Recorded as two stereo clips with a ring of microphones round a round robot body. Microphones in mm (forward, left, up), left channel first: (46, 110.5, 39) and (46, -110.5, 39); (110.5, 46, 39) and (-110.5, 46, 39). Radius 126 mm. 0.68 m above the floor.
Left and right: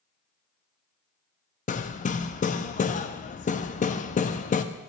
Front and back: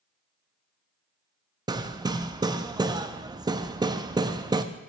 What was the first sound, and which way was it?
Hammering, 120° left.